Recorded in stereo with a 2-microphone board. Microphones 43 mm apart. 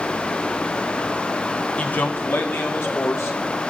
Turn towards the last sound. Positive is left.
turn(degrees=75)  # may be behind; listen again after turning